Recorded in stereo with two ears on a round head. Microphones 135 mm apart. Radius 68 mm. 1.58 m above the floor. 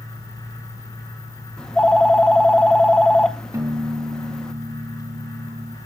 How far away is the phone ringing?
About 0.7 m.